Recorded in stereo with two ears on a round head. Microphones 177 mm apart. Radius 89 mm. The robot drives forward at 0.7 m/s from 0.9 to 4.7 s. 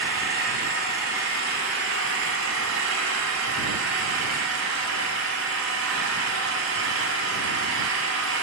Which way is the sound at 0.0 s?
55° right (ahead or behind).